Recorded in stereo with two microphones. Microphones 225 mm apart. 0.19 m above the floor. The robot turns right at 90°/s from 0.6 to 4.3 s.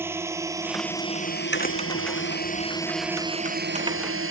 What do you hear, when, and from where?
0.0 s a drone: 10° right (ahead or behind); by 4.3 s 65° right (ahead or behind)
1.5 s a crack: 50° left (ahead or behind); by 4.1 s 5° left (ahead or behind)